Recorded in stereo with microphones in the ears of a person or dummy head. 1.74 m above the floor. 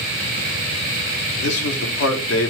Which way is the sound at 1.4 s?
85° left.